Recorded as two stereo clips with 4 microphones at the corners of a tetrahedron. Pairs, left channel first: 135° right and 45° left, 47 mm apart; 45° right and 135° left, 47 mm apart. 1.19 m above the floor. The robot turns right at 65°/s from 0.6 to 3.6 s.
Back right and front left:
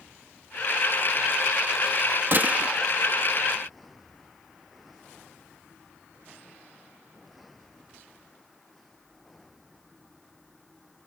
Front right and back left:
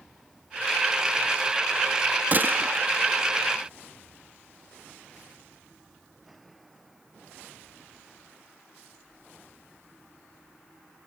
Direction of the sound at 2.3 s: 85° left.